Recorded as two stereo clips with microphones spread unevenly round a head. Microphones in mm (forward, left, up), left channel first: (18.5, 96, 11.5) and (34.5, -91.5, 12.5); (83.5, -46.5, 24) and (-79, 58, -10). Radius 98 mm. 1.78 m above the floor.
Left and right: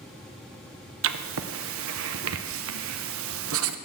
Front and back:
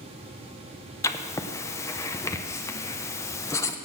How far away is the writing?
About 0.6 m.